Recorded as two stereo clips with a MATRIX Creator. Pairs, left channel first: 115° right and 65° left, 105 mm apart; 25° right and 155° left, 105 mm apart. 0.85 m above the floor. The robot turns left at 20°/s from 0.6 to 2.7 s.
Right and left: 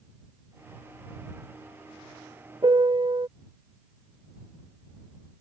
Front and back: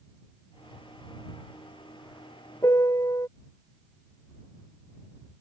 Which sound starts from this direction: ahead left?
A piano, at 2.6 s.